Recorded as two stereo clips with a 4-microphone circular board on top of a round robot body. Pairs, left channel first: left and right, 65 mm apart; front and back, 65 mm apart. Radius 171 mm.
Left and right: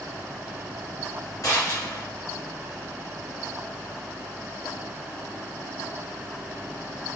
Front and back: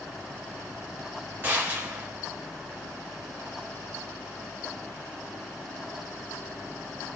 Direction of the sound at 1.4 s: 120° left.